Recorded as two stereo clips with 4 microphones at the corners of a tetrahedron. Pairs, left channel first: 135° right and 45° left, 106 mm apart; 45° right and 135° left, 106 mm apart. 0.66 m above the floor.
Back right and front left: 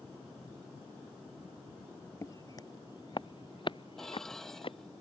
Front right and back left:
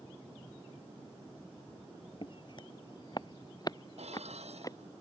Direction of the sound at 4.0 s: 140° left.